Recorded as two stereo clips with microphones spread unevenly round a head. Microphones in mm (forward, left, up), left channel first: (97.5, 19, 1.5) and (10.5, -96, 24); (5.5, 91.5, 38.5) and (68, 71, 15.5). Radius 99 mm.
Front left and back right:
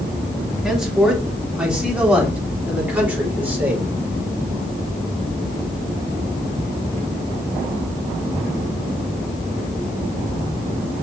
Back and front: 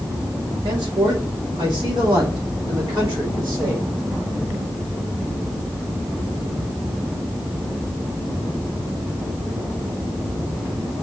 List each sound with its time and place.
0.6 s a man speaking: 40° right, 3 m; by 3.9 s 50° right, 4.5 m